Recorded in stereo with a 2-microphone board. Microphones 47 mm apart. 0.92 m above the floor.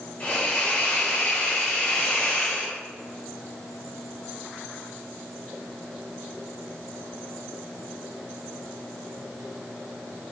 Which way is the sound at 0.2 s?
30° left (ahead or behind).